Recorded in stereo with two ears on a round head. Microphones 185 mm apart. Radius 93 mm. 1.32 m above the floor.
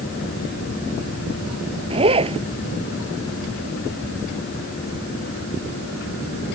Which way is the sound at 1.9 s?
30° right (ahead or behind).